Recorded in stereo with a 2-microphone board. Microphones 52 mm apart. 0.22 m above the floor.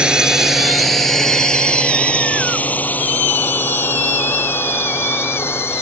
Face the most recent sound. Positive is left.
turn(degrees=45)  # may be behind; listen again after turning